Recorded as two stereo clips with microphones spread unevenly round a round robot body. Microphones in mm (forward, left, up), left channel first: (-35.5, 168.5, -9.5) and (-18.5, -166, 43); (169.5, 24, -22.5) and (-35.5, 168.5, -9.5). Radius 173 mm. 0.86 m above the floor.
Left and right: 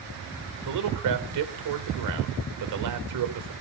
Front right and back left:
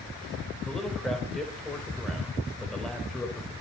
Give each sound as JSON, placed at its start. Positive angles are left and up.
{"t": 0.7, "sound": "a man speaking", "azimuth_deg": -125, "distance_m": 4.0}